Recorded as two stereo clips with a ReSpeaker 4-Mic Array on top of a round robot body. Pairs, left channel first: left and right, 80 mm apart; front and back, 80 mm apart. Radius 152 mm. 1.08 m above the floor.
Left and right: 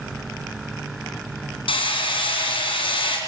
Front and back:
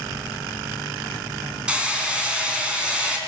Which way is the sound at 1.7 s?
100° left.